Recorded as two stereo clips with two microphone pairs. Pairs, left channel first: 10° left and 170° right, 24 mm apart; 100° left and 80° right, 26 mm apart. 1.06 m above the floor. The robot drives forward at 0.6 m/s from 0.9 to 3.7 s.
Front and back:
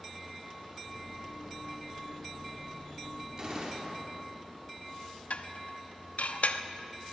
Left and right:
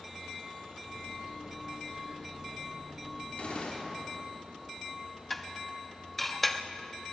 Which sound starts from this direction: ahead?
Dishes clattering, at 5.3 s.